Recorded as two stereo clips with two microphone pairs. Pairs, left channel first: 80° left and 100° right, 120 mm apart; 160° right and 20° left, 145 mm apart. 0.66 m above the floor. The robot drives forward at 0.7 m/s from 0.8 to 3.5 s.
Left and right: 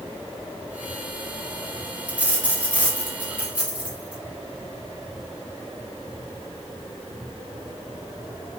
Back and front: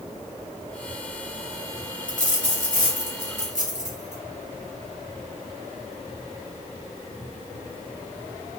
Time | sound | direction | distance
2.1 | a dropped coin | straight behind | 0.9 m